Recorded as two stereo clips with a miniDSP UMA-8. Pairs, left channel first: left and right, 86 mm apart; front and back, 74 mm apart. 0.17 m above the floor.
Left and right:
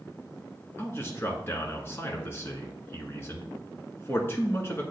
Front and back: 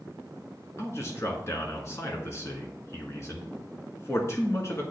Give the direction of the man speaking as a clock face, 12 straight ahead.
11 o'clock.